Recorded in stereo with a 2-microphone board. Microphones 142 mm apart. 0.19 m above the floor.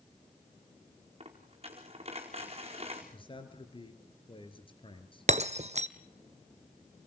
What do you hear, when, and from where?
1.2 s a dropped coin: 45° right (ahead or behind), 4.5 m
3.1 s a man speaking: 35° left (ahead or behind), 4 m
5.3 s breaking glass: 55° right (ahead or behind), 0.9 m